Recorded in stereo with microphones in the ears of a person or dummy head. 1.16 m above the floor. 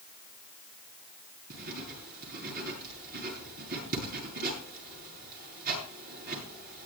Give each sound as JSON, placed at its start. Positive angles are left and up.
{"t": 1.5, "sound": "writing", "side_deg": -55, "distance_m": 8.5}